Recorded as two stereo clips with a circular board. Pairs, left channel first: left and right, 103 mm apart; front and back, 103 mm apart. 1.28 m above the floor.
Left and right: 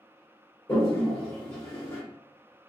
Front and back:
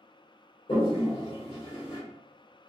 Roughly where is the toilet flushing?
Ahead left.